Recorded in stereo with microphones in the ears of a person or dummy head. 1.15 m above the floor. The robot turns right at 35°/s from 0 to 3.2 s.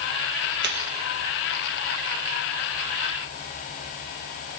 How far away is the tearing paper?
About 1.5 m.